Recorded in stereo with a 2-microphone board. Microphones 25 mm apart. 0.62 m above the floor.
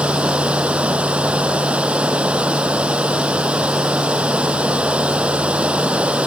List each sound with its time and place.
0.0 s running water: 60° right (ahead or behind)